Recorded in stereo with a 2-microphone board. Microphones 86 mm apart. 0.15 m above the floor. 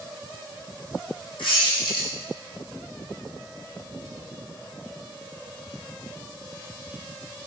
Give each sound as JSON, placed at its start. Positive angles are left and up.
{"t": 1.4, "sound": "a squeak", "side_deg": 70, "distance_m": 2.0}